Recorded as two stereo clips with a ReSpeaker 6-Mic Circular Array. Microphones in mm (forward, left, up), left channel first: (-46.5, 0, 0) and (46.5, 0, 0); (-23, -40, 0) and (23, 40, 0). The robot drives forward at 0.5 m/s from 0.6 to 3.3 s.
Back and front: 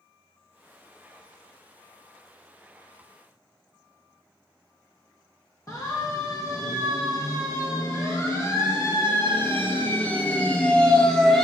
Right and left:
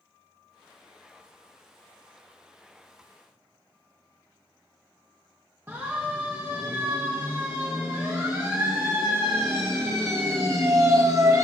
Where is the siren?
125° left, 5.5 m; by 11.4 s 95° left, 2.0 m.